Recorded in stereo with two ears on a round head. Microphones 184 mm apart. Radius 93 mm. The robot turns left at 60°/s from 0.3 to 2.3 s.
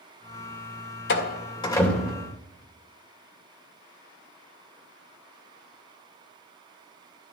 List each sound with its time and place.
1.1 s a door slam: 55° left (ahead or behind), 2.5 m; by 2.3 s 20° right (ahead or behind), 2.5 m